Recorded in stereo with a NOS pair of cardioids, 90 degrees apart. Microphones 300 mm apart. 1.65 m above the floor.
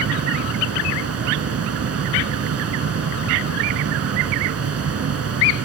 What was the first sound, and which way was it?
A fan, 55° right.